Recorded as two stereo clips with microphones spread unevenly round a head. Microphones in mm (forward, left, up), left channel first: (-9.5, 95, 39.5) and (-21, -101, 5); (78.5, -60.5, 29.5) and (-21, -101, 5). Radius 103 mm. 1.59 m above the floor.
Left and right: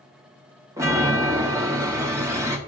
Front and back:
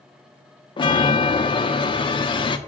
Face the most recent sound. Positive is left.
turn(degrees=-15)